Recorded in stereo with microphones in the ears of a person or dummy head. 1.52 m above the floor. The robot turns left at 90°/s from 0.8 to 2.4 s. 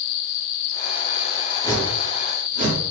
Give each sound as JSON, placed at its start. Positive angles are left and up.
{"t": 1.6, "sound": "a whoosh", "side_deg": 25, "distance_m": 0.8}